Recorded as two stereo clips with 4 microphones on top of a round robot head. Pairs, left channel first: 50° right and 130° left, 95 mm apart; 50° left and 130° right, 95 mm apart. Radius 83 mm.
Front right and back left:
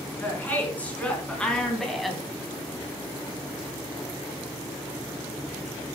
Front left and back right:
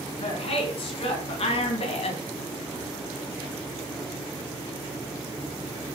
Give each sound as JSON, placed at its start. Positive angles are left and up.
{"t": 0.2, "sound": "a woman speaking", "azimuth_deg": 25, "distance_m": 5.0}